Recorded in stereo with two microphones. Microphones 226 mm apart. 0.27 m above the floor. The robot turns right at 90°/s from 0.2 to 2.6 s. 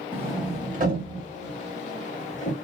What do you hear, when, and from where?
0.1 s a sliding door: 10° right (ahead or behind), 0.8 m; by 2.5 s 25° left (ahead or behind), 0.8 m